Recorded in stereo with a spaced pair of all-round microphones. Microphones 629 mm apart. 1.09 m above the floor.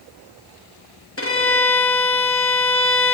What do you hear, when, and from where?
1.2 s a violin: 20° left (ahead or behind), 1.0 m